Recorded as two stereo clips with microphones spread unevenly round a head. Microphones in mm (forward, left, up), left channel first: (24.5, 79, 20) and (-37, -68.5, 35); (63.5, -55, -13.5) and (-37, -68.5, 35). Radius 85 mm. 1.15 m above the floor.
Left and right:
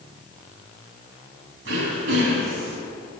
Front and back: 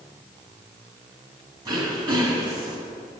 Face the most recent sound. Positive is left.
turn(degrees=-130)